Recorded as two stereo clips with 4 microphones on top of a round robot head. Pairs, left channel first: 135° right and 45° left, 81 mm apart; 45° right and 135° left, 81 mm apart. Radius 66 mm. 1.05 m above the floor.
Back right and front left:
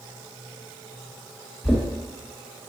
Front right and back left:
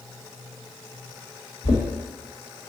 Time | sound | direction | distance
1.6 | knocking | 40° right | 0.9 m